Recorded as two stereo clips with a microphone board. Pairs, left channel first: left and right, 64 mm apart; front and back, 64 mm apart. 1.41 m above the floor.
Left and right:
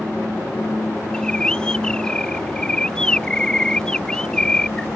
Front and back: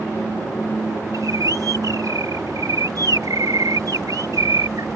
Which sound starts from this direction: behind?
A bird, at 1.1 s.